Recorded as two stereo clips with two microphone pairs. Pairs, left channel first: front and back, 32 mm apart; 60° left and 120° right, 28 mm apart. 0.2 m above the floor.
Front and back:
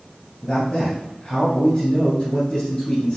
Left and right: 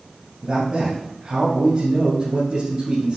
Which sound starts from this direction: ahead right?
A man speaking, at 0.4 s.